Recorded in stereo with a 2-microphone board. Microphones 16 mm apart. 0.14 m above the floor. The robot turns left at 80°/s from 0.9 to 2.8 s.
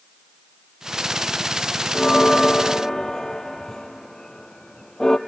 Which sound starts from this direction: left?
A bell, at 1.9 s.